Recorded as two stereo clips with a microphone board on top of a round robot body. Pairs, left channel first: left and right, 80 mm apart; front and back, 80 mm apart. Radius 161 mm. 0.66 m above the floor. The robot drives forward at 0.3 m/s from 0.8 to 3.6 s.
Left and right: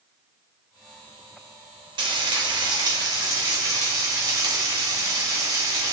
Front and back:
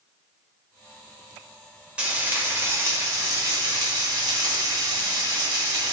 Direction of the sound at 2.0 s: 105° right.